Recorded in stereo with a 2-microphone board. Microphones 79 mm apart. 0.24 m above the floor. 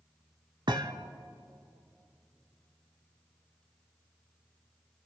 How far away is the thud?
About 0.9 m.